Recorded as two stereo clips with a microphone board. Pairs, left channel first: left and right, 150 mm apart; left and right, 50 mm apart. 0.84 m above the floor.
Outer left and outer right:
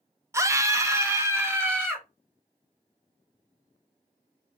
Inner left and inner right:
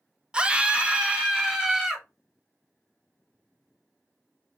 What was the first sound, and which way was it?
A scream, 20° right (ahead or behind).